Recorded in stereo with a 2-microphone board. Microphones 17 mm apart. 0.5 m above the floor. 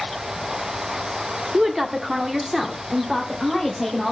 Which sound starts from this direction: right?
A woman speaking, at 1.5 s.